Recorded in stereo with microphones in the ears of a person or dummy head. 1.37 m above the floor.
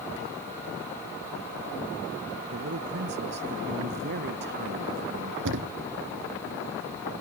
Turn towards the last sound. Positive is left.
turn(degrees=-65)  # may be behind; listen again after turning